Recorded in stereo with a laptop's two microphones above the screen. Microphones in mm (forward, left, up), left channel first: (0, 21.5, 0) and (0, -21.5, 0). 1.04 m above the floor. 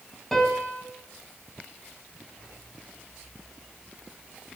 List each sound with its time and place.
0.3 s a piano: 10° left (ahead or behind), 1.4 m